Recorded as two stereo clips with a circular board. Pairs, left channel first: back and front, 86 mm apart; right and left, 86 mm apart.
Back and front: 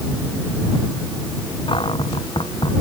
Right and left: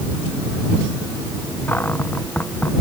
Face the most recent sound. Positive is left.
turn(degrees=-160)